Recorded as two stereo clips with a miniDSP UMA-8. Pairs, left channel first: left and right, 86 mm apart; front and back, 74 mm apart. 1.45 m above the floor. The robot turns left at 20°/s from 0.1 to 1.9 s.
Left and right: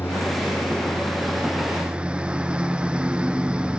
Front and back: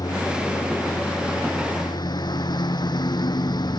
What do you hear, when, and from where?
0.0 s a lawn mower: 25° left; by 3.8 s 10° right